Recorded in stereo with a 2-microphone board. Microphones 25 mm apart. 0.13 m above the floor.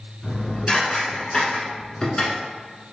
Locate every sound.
0.2 s dishes clattering: 35° left (ahead or behind), 0.9 m